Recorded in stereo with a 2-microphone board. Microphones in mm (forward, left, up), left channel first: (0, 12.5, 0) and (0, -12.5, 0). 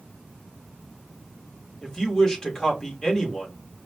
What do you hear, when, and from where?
1.8 s a woman speaking: 25° left (ahead or behind), 1.2 m